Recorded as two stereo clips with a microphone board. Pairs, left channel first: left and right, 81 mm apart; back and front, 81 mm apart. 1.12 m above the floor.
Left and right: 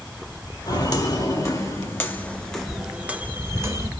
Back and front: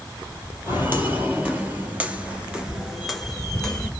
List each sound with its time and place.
0.7 s footsteps: 65° left, 2 m; by 3.9 s 105° right, 1.4 m